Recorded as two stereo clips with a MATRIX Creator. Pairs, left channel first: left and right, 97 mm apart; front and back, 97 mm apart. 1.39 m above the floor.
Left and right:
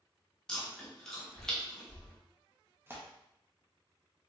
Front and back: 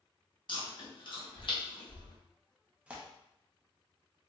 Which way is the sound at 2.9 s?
120° right.